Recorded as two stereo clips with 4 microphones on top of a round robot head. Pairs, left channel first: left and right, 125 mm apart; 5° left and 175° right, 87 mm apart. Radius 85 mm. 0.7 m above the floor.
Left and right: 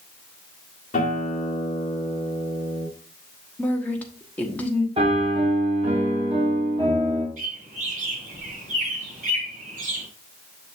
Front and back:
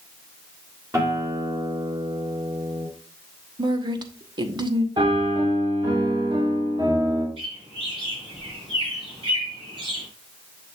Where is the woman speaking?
170° left, 1.2 m.